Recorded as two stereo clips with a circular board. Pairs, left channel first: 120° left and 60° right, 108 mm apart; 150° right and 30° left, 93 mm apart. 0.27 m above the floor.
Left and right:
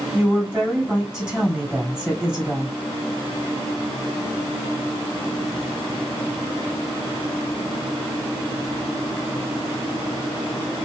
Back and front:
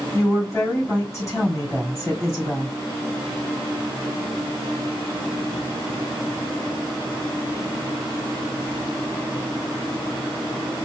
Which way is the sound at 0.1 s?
130° right.